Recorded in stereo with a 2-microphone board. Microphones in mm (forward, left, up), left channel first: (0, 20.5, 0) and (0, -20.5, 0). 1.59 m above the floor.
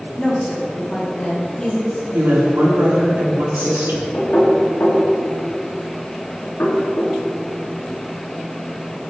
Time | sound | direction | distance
0.2 | a woman speaking | 15° left (ahead or behind) | 2 m
2.1 | a woman speaking | 80° right | 4 m
4.1 | knocking | 65° left (ahead or behind) | 3 m